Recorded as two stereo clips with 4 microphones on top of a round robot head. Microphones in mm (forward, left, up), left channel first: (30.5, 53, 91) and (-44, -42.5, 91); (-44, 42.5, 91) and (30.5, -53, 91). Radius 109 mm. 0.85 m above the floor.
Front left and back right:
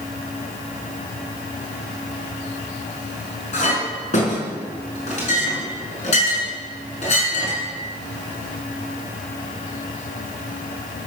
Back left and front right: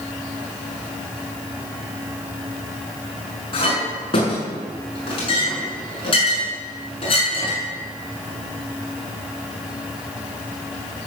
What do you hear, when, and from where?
3.5 s a clink: 80° left, 6 m